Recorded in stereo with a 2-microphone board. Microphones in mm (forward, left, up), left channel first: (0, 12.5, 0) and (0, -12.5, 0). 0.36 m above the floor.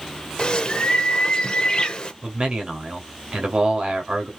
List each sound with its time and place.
0.4 s a bird: 35° left (ahead or behind), 0.8 m
2.2 s a man speaking: 40° right (ahead or behind), 1.6 m